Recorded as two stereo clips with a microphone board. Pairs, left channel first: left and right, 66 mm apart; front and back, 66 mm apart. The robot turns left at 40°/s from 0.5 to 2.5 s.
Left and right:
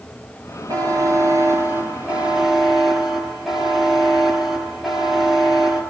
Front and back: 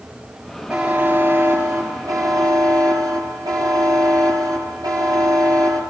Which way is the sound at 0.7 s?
100° right.